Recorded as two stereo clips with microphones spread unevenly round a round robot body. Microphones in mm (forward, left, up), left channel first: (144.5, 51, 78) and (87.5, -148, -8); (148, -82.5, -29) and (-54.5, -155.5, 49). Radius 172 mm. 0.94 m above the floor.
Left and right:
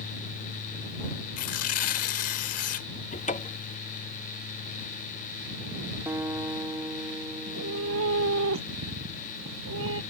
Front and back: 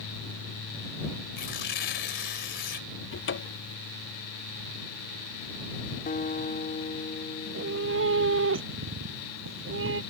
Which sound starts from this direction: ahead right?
A guitar, at 6.1 s.